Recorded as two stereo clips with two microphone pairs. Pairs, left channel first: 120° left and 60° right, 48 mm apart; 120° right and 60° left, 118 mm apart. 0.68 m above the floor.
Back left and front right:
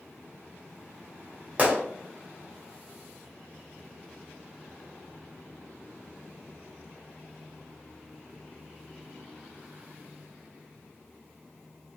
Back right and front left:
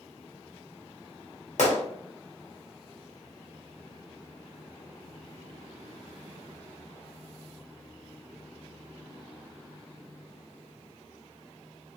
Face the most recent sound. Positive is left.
turn(degrees=-120)